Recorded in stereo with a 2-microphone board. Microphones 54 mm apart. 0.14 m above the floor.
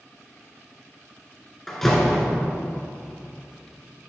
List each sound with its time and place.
1.7 s a door slam: 5° left (ahead or behind), 1.5 m